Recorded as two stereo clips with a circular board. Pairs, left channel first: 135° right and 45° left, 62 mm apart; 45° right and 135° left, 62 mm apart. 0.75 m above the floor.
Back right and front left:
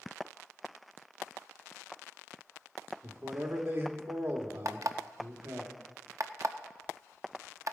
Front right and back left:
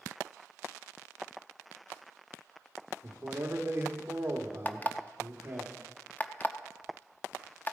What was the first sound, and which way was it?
A man speaking, 90° left.